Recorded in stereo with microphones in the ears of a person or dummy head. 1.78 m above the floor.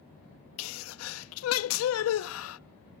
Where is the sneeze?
80° left, 0.6 m.